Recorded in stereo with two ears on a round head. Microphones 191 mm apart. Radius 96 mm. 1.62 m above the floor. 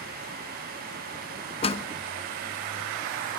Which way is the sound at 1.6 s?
30° left (ahead or behind).